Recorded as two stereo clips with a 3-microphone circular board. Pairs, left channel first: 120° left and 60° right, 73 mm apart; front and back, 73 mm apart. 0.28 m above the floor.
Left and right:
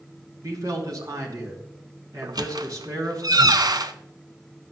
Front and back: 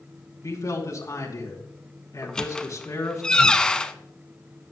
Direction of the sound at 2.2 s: 80° right.